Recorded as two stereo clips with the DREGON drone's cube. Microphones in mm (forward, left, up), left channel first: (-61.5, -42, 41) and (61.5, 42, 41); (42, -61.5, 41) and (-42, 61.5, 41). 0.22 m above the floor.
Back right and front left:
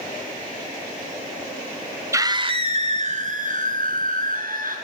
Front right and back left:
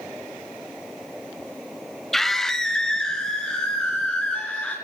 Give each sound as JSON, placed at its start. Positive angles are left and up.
{"t": 2.1, "sound": "a scream", "azimuth_deg": 30, "distance_m": 1.0}